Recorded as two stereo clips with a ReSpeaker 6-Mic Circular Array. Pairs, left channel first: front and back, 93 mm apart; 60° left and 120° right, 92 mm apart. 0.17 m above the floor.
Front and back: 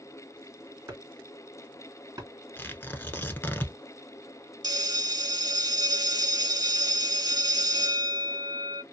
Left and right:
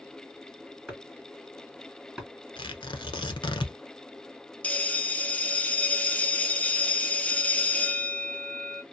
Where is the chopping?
155° left, 2 m.